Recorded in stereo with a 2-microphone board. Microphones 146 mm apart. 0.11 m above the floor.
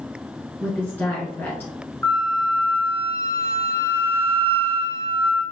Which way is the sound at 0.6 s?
15° left (ahead or behind).